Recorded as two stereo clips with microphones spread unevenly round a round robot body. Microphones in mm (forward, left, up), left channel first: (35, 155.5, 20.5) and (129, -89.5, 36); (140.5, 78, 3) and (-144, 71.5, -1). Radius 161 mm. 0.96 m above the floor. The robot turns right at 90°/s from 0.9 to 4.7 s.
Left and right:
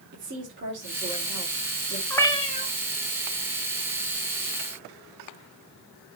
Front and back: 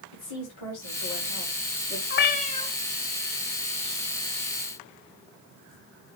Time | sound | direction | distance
0.1 | a woman speaking | 25° right | 4 m
2.1 | a cat meowing | 25° left | 1.1 m